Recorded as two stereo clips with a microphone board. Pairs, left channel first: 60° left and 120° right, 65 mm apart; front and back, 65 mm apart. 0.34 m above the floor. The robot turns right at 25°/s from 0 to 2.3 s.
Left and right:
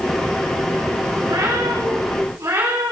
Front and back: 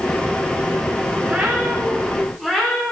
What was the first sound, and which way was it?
A cat meowing, 110° right.